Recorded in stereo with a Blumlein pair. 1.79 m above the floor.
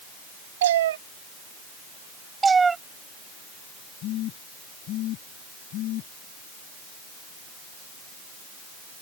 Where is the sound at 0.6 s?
60° right.